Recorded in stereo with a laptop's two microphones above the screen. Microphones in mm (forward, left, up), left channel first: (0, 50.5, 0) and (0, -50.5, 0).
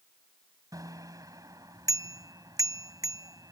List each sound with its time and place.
0.7 s a bicycle bell: 35° right (ahead or behind)